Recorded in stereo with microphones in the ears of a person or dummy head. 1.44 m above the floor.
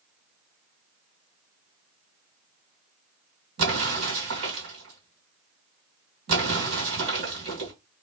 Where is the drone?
No drone in this recording.